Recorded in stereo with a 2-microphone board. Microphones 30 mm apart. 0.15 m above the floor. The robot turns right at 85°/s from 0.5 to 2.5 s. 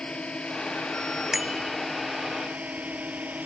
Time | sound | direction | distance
0.0 | a drone | 35° left (ahead or behind) | ?
1.3 | a bicycle bell | 160° right | ?